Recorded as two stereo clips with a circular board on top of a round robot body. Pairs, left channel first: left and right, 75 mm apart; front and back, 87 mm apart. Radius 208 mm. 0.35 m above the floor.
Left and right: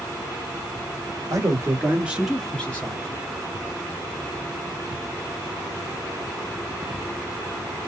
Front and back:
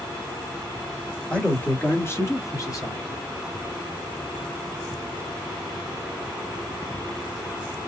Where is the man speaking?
75° right, 1.7 m; by 3.2 s 45° left, 1.9 m.